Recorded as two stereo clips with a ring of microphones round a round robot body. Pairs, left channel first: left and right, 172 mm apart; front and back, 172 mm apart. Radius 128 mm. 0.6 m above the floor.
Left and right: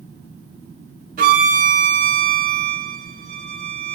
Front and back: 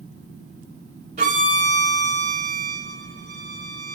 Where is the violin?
130° right, 0.7 m.